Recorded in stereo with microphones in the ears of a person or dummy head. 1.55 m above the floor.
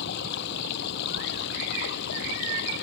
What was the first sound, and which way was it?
Running water, 60° left (ahead or behind).